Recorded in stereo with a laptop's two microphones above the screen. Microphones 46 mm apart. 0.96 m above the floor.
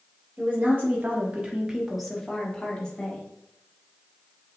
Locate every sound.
0.4 s a woman speaking: 40° right (ahead or behind), 1.3 m; by 3.3 s 25° left (ahead or behind), 1.4 m